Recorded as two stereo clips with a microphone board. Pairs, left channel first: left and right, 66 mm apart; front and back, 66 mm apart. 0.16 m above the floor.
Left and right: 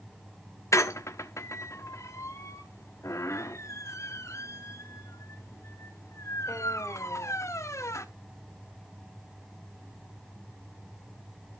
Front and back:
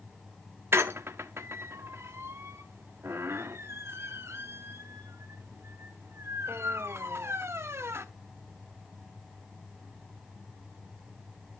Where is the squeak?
130° left, 0.8 m.